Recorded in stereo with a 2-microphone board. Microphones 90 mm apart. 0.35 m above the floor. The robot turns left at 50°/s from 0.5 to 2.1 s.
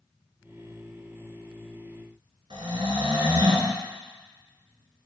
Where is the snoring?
75° right (ahead or behind), 1.1 m.